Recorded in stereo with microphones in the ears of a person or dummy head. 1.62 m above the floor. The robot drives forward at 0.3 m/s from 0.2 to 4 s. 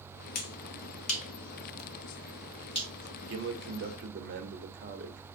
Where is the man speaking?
70° right (ahead or behind), 0.9 m; by 5.2 s 60° right (ahead or behind), 1.0 m.